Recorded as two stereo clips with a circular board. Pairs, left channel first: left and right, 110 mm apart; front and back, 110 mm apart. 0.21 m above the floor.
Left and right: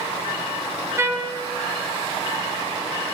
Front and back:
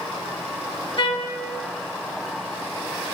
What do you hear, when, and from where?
1.0 s a trumpet: 30° right, 0.6 m